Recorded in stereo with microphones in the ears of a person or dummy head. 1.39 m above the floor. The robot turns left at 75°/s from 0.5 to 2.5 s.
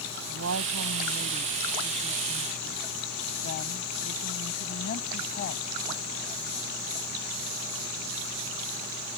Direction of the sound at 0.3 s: 75° right.